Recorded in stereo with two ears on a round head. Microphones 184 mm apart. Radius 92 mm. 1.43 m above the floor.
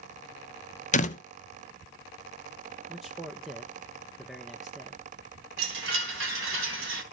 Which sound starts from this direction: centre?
A man speaking, at 2.9 s.